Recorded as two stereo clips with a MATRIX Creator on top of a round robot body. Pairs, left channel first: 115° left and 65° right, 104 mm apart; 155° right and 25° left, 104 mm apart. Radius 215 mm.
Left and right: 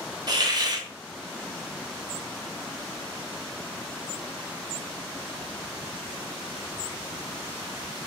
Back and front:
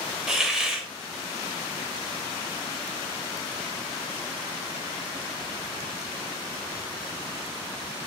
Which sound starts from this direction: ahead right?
A hiss, at 0.3 s.